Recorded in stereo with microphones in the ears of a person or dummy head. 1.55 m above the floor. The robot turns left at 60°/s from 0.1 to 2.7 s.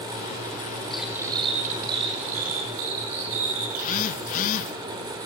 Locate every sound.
0.9 s cutlery clinking: 5° left, 3.5 m; by 4.2 s 100° right, 3.5 m
3.7 s a phone buzzing: 45° left (ahead or behind), 1.2 m